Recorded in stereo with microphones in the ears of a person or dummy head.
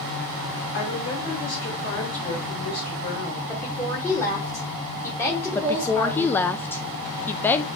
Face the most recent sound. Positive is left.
turn(degrees=10)  # may be behind; listen again after turning